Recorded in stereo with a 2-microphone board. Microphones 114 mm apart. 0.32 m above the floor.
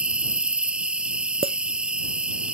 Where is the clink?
65° right (ahead or behind).